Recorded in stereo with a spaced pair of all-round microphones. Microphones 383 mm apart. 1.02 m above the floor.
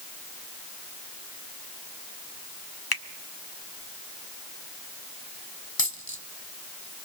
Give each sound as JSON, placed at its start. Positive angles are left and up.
{"t": 2.9, "sound": "a finger snap", "side_deg": 75, "distance_m": 1.1}
{"t": 5.8, "sound": "a dropped coin", "side_deg": 65, "distance_m": 1.9}